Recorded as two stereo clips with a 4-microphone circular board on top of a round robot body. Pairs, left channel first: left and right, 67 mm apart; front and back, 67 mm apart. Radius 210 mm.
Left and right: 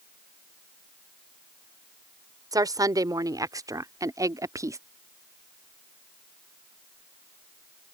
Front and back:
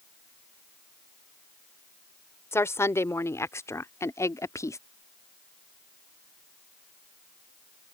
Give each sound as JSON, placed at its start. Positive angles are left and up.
{"t": 2.5, "sound": "a woman speaking", "azimuth_deg": -55}